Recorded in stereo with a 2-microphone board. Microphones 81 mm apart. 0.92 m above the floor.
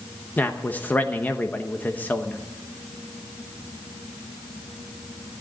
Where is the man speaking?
20° left (ahead or behind), 1.0 m.